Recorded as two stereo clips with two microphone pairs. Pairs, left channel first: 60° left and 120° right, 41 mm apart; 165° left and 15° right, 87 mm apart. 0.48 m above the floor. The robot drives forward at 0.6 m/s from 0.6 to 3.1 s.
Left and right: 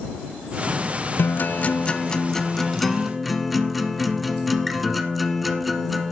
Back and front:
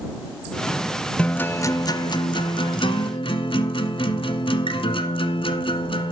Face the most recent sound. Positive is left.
turn(degrees=155)